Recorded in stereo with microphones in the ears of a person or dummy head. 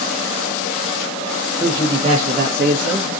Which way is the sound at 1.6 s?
20° right (ahead or behind).